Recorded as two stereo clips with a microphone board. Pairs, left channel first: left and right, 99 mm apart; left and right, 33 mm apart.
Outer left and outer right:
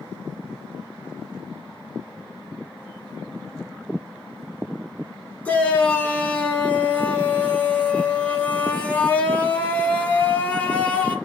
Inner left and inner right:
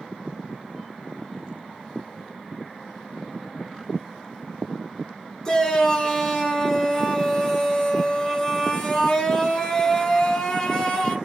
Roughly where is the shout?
Centre.